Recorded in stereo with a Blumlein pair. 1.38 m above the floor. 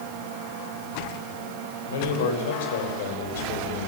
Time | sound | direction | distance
1.9 | a man speaking | 55° left | 7 m